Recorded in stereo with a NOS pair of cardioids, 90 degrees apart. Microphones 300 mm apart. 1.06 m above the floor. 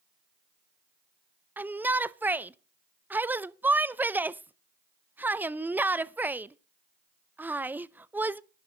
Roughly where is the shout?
Ahead.